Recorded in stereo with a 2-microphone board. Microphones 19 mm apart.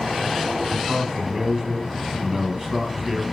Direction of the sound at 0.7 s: 25° right (ahead or behind).